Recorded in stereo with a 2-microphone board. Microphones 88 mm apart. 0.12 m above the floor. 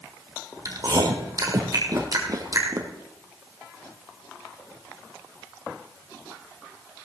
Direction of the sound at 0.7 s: 45° right (ahead or behind).